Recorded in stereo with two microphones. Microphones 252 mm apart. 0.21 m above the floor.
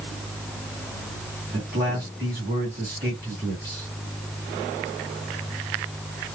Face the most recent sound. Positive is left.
turn(degrees=-40)  # may be behind; listen again after turning